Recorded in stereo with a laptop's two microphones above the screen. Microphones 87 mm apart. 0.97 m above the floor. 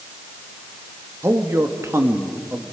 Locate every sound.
1.2 s a man speaking: 30° right (ahead or behind), 1.8 m